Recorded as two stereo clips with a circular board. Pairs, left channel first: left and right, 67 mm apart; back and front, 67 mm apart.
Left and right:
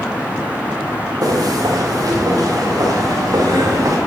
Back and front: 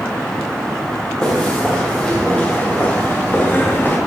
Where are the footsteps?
100° right, 6.5 m; by 4.0 s 120° right, 6.5 m.